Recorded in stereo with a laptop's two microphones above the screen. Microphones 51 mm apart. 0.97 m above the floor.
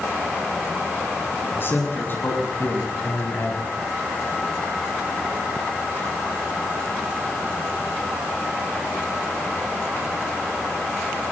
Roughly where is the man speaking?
Left.